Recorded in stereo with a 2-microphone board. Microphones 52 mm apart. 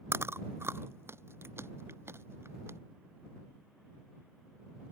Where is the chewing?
55° right (ahead or behind).